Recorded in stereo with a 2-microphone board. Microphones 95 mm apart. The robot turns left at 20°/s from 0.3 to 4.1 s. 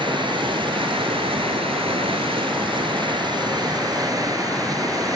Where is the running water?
60° right, 1.1 m; by 5.2 s 140° right, 1.1 m.